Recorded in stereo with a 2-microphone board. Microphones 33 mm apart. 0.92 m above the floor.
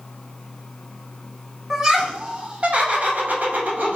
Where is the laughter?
15° right (ahead or behind), 1.3 m; by 4.0 s 65° right (ahead or behind), 1.3 m.